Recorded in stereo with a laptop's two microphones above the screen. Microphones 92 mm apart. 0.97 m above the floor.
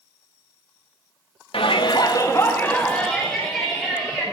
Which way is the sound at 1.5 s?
75° left (ahead or behind).